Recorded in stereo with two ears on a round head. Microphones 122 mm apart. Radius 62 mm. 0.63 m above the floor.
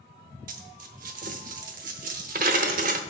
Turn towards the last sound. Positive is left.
turn(degrees=-60)  # may be behind; listen again after turning